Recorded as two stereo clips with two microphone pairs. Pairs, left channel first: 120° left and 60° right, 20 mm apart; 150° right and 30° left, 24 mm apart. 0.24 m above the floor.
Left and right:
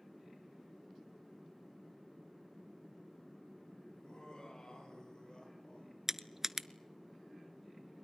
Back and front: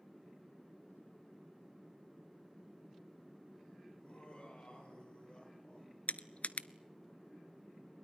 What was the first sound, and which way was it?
Laughter, 170° left.